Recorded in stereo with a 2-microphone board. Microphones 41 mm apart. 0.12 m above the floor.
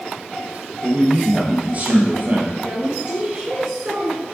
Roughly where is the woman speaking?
Right.